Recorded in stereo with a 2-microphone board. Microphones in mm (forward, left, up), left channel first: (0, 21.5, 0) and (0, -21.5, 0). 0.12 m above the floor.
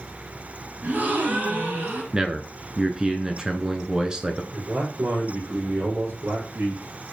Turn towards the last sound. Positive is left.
turn(degrees=-60)  # may be behind; listen again after turning